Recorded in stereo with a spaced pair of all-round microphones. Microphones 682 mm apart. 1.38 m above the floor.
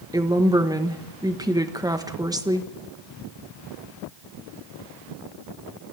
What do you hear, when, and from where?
0.1 s a woman speaking: 5° right (ahead or behind), 1.2 m